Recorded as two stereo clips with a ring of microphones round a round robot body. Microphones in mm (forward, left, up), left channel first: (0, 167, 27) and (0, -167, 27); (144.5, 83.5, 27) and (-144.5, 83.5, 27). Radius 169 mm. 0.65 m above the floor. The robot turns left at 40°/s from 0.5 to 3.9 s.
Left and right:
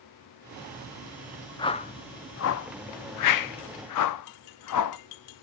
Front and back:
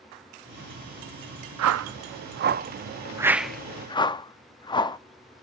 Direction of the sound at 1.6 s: 165° left.